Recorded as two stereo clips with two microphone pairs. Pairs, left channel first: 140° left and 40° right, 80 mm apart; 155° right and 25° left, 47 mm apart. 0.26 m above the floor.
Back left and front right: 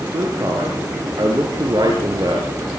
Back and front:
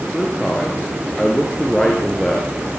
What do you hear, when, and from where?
0.1 s a man speaking: 75° right, 4.5 m